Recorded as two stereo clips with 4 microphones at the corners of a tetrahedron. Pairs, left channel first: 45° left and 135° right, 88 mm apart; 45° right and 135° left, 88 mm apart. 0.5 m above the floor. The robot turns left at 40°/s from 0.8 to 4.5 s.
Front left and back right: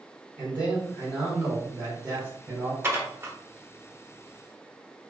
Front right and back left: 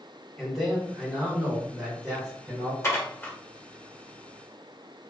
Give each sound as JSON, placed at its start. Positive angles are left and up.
{"t": 0.4, "sound": "a man speaking", "azimuth_deg": -115, "distance_m": 1.1}
{"t": 2.8, "sound": "dishes clattering", "azimuth_deg": -80, "distance_m": 0.8}